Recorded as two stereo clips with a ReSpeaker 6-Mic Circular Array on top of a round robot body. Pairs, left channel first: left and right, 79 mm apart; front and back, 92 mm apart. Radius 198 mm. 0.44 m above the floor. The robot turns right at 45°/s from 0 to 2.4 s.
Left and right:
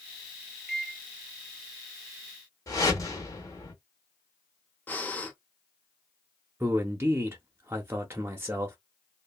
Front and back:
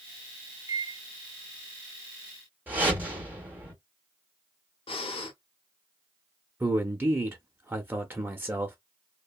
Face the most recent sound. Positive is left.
turn(degrees=-125)